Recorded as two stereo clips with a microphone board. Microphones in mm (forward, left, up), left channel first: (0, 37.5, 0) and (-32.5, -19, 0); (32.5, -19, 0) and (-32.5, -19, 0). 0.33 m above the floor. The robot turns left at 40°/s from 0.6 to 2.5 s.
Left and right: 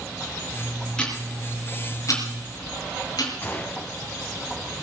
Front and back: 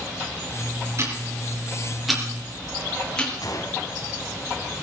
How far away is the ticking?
About 4 m.